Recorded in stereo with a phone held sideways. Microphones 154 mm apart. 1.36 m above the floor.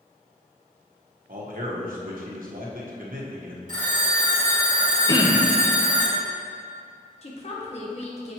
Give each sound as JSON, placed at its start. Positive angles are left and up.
{"t": 1.3, "sound": "a man speaking", "side_deg": -65, "distance_m": 1.1}
{"t": 3.7, "sound": "a phone ringing", "side_deg": -60, "distance_m": 1.4}
{"t": 5.1, "sound": "throat clearing", "side_deg": 25, "distance_m": 0.7}
{"t": 7.2, "sound": "a woman speaking", "side_deg": 45, "distance_m": 1.2}